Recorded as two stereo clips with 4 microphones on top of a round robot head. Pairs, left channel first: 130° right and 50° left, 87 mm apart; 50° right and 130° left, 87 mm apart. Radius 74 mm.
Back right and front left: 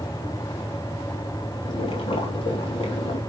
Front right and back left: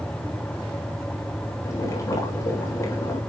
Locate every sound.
1.6 s boiling: 105° right, 3 m